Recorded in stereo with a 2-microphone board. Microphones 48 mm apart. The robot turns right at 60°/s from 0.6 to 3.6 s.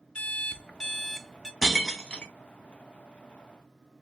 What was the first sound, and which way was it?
An alarm clock, 145° left.